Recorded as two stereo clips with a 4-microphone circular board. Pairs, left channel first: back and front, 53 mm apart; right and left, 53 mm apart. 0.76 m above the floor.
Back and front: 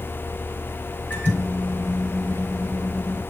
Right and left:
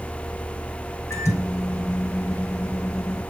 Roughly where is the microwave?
Behind right.